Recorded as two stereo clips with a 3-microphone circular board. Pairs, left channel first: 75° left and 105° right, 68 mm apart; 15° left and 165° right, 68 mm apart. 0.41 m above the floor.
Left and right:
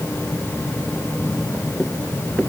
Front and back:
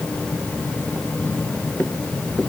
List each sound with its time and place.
Only background noise.